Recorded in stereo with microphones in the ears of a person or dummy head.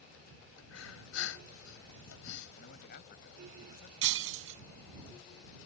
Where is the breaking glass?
80° right.